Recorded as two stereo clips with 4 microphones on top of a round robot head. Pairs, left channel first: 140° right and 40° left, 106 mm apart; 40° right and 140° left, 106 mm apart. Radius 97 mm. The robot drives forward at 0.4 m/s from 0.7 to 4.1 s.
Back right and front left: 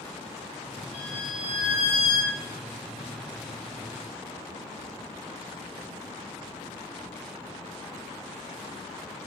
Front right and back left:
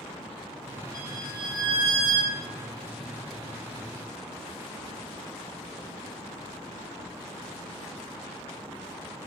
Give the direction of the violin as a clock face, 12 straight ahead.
5 o'clock.